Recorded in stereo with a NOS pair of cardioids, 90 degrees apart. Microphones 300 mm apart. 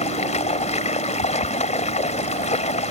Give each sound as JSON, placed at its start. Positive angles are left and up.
{"t": 0.0, "sound": "running water", "azimuth_deg": 25}